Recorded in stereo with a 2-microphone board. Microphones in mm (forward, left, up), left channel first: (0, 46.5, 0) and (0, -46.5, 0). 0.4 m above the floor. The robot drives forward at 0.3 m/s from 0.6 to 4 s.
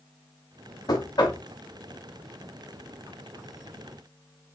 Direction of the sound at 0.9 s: 50° left (ahead or behind).